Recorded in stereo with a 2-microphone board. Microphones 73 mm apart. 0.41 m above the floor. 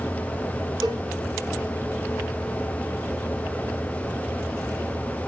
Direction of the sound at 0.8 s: 80° right.